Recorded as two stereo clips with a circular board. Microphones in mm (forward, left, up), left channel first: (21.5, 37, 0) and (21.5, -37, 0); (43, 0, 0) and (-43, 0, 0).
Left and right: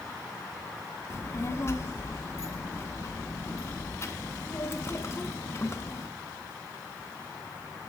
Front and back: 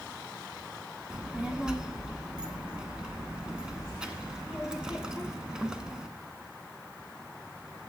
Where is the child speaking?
105° left, 0.8 m.